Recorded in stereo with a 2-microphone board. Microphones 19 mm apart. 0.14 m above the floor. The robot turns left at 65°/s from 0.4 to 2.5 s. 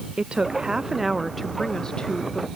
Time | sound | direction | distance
0.2 | a woman speaking | 125° right | ?